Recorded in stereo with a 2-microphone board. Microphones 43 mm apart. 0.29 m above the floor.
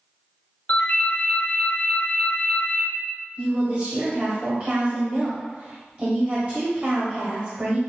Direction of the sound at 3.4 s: 35° right (ahead or behind).